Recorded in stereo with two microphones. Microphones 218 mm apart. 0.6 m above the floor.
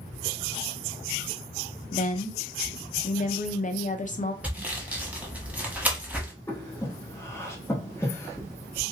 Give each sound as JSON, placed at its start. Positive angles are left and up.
{"t": 1.9, "sound": "a woman speaking", "side_deg": 35, "distance_m": 0.6}
{"t": 4.4, "sound": "sawing", "side_deg": -5, "distance_m": 0.9}
{"t": 6.5, "sound": "breathing", "side_deg": 10, "distance_m": 1.1}